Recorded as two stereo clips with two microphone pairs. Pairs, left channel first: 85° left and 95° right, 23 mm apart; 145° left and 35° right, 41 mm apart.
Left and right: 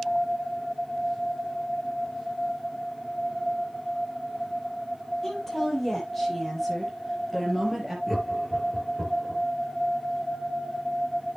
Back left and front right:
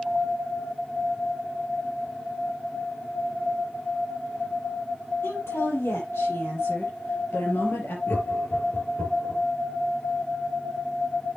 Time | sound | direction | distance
5.2 | a woman speaking | 150° left | 7.5 m
8.1 | laughter | 175° left | 5 m